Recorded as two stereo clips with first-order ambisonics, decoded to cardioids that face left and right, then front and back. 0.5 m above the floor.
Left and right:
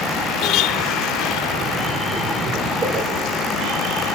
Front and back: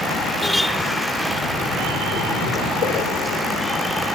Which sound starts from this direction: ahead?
A splash, at 1.2 s.